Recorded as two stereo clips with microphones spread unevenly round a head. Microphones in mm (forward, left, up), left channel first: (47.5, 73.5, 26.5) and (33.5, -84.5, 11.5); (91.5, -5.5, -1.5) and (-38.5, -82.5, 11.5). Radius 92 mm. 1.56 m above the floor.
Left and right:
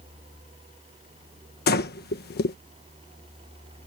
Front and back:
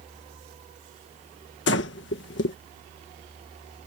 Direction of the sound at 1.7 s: 60° left.